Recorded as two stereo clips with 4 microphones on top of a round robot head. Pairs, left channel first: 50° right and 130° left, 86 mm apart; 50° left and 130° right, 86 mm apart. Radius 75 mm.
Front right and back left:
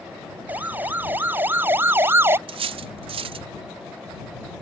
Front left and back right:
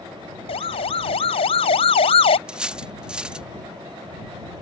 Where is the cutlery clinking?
150° left.